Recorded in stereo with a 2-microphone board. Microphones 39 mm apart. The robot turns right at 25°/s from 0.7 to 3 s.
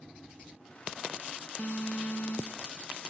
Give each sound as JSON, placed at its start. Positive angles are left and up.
{"t": 1.6, "sound": "an alarm", "side_deg": 50}